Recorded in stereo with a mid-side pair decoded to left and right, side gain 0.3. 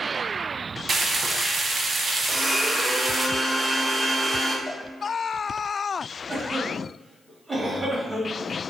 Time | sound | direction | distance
0.9 | frying | 60° right | 0.5 m
2.3 | a blender | 30° right | 1.3 m
4.7 | a cowbell | 65° right | 1.2 m
6.3 | a cough | 35° right | 1.5 m